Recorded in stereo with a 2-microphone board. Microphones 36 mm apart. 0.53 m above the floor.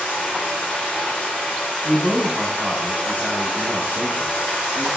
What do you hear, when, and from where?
0.0 s running water: 55° left (ahead or behind), 1.2 m
1.8 s a man speaking: 35° right (ahead or behind), 0.8 m